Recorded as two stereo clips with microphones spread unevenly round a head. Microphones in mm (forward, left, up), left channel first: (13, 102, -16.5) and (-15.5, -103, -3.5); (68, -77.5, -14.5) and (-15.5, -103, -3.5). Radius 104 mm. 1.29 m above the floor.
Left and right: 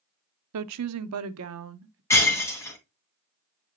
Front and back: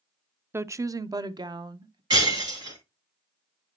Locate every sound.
0.5 s a woman speaking: 95° right, 0.5 m; by 2.0 s 130° right, 1.2 m
2.1 s breaking glass: 160° left, 2 m